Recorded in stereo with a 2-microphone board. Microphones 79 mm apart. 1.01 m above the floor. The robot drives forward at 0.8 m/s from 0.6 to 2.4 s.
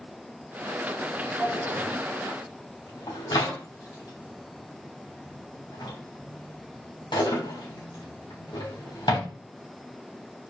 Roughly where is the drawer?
Left.